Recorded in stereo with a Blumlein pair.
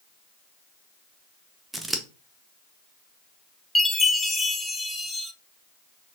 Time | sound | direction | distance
1.7 | scissors | 10° right | 0.7 m
3.8 | a chime | 10° left | 0.6 m